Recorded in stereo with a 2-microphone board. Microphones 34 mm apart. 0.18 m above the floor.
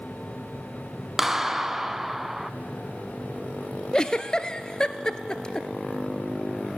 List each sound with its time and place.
1.2 s a clap: 10° right (ahead or behind), 0.9 m
3.9 s a giggle: 25° left (ahead or behind), 1.0 m